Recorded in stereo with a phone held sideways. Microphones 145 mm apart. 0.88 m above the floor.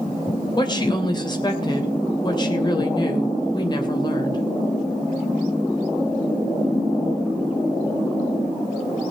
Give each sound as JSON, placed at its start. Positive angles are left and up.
{"t": 0.6, "sound": "a woman speaking", "side_deg": 30, "distance_m": 3.0}